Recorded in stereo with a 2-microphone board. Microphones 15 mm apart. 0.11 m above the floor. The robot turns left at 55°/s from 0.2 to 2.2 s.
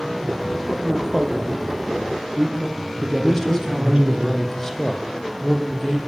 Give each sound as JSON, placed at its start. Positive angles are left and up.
{"t": 0.7, "sound": "a man speaking", "side_deg": 5, "distance_m": 3.0}
{"t": 3.2, "sound": "a man speaking", "side_deg": 25, "distance_m": 5.5}